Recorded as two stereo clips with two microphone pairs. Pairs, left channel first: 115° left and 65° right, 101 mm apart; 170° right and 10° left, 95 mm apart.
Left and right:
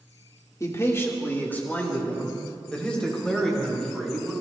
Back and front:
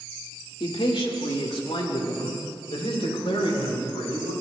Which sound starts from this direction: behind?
A man speaking, at 0.6 s.